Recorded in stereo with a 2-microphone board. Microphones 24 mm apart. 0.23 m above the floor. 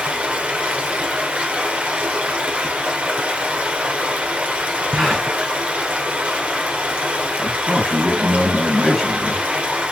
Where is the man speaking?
15° left (ahead or behind), 3 m.